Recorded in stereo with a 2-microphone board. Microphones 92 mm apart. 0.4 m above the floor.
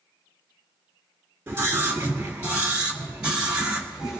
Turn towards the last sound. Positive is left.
turn(degrees=-10)  # may be behind; listen again after turning